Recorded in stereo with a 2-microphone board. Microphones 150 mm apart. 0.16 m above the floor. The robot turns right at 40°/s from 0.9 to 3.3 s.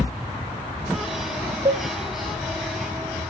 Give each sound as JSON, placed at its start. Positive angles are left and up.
{"t": 1.6, "sound": "a cowbell", "side_deg": -40, "distance_m": 0.7}